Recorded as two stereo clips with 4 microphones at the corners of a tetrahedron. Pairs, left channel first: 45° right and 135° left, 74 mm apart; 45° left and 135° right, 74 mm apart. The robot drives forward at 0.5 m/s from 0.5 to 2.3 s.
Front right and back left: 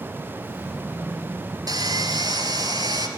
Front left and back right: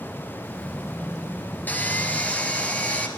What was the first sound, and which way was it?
Sawing, 110° left.